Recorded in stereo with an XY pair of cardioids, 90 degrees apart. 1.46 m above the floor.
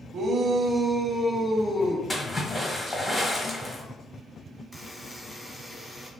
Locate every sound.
0.1 s a shout: 65° right, 0.6 m; by 2.0 s 25° left, 0.8 m
2.1 s a splash: 25° left, 1.1 m
4.7 s a buzzer: 5° left, 0.8 m